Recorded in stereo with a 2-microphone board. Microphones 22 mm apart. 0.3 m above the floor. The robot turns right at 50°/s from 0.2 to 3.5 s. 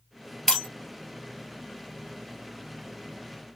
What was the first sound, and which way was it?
Breaking glass, 20° left (ahead or behind).